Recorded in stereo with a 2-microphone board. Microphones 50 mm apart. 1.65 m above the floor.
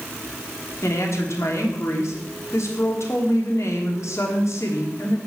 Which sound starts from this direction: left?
A woman speaking, at 0.8 s.